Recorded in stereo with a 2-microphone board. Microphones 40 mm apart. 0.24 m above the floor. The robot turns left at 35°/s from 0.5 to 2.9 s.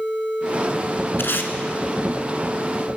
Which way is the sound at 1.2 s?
65° left (ahead or behind).